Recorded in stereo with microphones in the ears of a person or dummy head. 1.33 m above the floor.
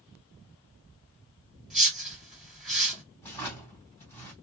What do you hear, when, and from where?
1.7 s a whoosh: centre (ahead or behind), 1.7 m
3.2 s a drawer: 15° left (ahead or behind), 1.9 m